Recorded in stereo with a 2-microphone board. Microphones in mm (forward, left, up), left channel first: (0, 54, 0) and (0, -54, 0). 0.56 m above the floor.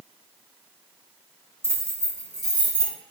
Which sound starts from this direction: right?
Keys jangling, at 1.6 s.